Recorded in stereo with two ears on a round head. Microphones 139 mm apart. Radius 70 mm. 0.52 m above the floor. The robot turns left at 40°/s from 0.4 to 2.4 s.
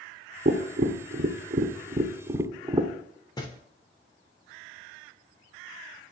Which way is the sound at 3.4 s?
25° left (ahead or behind).